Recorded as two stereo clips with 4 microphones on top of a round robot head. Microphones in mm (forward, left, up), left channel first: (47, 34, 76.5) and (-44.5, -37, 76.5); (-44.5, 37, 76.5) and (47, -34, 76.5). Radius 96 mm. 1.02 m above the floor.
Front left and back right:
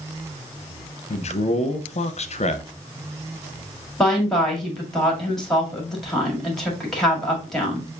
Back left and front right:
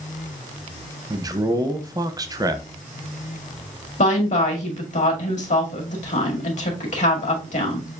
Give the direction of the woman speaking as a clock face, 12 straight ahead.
8 o'clock.